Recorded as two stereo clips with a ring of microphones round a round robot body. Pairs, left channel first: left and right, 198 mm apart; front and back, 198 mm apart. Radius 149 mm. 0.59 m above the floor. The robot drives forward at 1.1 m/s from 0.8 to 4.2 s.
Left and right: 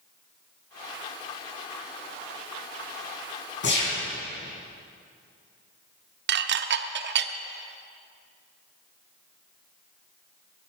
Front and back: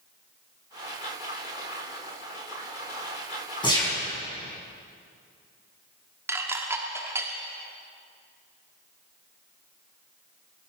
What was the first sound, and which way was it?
A gunshot, 65° left.